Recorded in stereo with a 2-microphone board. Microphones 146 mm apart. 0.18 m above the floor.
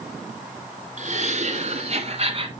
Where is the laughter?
55° right (ahead or behind), 2 m; by 2.5 s 40° right (ahead or behind), 1.4 m.